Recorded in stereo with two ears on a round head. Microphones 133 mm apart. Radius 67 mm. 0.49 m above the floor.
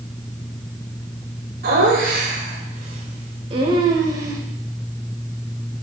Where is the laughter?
65° right (ahead or behind), 2.5 m; by 4.4 s 20° right (ahead or behind), 2.5 m.